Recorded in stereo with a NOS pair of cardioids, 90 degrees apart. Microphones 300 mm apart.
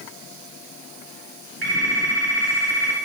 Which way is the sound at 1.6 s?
55° right.